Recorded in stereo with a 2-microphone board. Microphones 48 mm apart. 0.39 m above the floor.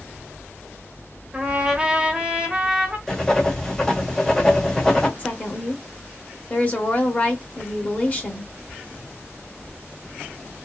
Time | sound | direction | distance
1.3 | a trumpet | 20° right (ahead or behind) | 1.1 m
3.1 | writing | 10° left (ahead or behind) | 1.4 m
5.2 | a woman speaking | 35° left (ahead or behind) | 1.2 m